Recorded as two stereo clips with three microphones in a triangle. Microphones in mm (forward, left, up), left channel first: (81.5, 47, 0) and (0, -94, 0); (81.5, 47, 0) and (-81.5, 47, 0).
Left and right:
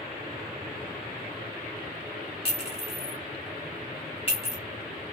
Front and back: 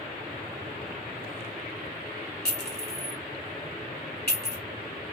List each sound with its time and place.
2.5 s a clink: 5° left, 1.3 m